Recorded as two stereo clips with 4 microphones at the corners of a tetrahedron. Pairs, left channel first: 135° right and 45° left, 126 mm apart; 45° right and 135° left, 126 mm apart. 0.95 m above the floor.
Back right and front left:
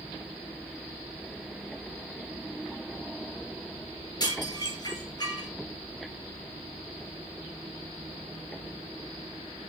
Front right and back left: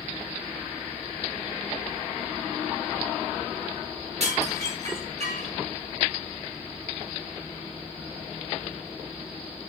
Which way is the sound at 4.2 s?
170° left.